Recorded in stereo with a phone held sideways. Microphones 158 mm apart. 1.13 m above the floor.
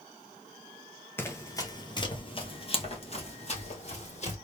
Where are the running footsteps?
15° left (ahead or behind), 1.1 m; by 4.3 s 45° left (ahead or behind), 2 m.